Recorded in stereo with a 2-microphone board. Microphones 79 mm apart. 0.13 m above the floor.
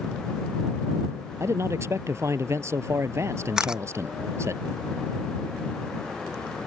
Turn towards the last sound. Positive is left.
turn(degrees=-10)  # may be behind; listen again after turning